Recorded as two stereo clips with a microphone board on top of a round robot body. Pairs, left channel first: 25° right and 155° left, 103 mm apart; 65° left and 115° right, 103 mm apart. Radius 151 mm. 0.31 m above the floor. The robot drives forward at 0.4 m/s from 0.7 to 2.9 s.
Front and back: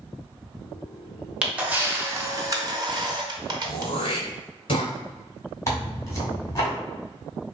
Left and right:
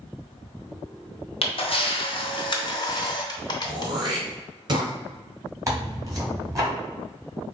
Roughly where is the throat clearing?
Ahead right.